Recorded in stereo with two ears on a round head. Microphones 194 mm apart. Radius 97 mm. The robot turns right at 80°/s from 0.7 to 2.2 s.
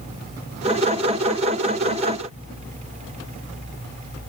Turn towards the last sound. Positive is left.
No sound to turn to.